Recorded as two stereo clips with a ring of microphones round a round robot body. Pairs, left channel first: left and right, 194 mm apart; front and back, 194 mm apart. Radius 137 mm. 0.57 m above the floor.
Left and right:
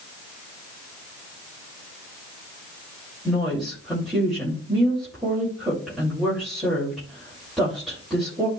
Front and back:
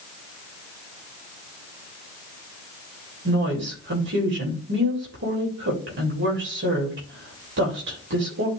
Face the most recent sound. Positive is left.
turn(degrees=180)